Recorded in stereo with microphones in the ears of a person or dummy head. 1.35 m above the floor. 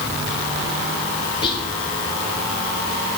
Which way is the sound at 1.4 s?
30° left (ahead or behind).